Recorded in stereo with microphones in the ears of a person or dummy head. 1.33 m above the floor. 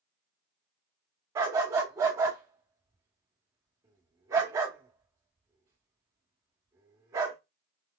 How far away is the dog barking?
About 1.0 m.